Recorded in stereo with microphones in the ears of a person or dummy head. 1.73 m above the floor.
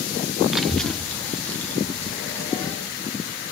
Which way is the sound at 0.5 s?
Centre (ahead or behind).